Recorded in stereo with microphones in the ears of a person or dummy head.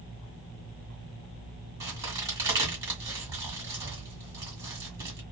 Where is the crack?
20° right (ahead or behind), 1.6 m.